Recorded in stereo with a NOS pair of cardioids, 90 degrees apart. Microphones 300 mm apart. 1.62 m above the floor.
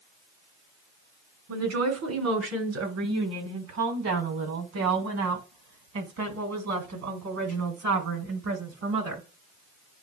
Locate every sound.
1.5 s a woman speaking: 65° right, 3 m; by 9.3 s 80° right, 7.5 m